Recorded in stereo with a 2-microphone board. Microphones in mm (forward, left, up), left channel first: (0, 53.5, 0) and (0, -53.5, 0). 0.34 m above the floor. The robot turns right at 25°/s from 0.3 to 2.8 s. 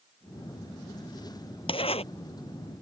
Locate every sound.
1.7 s a zipper: 50° left (ahead or behind); by 2.0 s 60° left (ahead or behind)